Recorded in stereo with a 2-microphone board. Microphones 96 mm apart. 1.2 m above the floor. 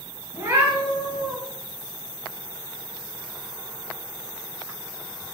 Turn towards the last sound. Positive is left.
turn(degrees=-50)  # may be behind; listen again after turning